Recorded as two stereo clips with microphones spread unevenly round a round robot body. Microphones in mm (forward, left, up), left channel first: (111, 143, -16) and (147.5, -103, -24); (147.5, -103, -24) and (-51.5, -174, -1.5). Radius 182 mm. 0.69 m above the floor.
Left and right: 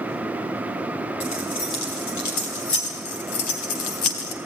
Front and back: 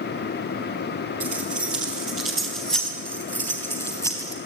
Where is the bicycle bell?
I don't hear a bicycle bell.